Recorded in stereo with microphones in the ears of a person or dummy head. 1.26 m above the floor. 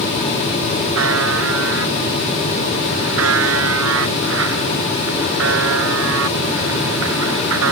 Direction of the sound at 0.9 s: 80° right.